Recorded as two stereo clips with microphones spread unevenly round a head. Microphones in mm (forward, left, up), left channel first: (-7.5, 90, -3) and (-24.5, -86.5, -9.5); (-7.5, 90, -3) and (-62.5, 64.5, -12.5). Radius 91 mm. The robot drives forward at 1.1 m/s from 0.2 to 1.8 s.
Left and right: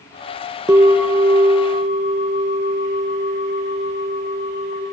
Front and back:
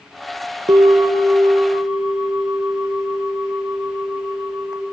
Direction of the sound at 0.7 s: 170° right.